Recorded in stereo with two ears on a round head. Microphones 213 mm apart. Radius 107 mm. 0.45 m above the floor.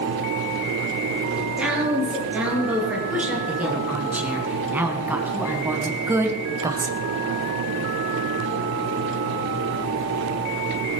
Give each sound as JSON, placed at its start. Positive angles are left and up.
{"t": 1.4, "sound": "a woman speaking", "side_deg": -5, "distance_m": 8.5}